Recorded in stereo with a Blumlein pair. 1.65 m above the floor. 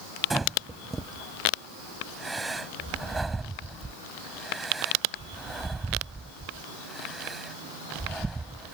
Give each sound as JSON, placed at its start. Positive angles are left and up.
{"t": 0.3, "sound": "breathing", "azimuth_deg": -10}